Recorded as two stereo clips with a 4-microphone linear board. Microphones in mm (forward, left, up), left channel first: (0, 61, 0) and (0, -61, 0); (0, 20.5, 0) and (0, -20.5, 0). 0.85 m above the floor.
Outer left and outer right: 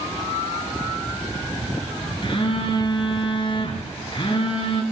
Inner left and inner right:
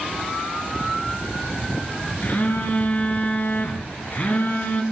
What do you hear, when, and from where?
2.2 s a phone buzzing: 45° left (ahead or behind), 2.5 m